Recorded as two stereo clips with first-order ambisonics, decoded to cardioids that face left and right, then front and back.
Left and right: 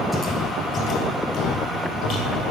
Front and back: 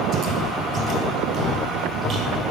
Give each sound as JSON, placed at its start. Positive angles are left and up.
{"t": 0.1, "sound": "footsteps", "azimuth_deg": 170, "distance_m": 0.8}